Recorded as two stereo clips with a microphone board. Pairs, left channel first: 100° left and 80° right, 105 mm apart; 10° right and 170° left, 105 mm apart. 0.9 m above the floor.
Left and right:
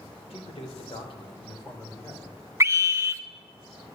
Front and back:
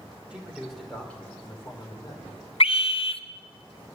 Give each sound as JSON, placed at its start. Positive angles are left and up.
{"t": 0.3, "sound": "a man speaking", "azimuth_deg": 90, "distance_m": 3.0}
{"t": 2.6, "sound": "a scream", "azimuth_deg": -20, "distance_m": 0.7}